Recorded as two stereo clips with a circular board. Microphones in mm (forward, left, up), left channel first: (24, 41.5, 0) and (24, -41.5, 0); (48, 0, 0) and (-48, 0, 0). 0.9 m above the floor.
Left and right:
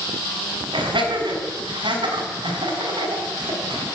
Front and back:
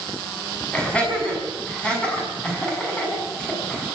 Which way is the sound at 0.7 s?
80° right.